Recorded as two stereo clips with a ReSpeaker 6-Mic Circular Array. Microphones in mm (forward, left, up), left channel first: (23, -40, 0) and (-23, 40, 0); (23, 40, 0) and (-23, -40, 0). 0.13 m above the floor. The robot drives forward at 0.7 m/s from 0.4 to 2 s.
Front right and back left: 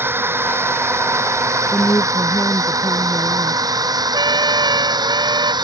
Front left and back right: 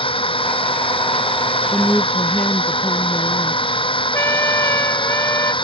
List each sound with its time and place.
0.0 s a drone: 55° left; by 5.6 s 80° left
1.7 s a woman speaking: 15° right
4.1 s a trumpet: 115° left